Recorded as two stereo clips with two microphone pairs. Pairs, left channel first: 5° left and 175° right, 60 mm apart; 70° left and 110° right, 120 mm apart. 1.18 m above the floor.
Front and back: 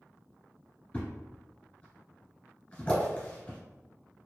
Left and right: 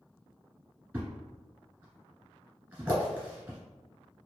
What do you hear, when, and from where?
0.9 s a thud: 45° right, 1.3 m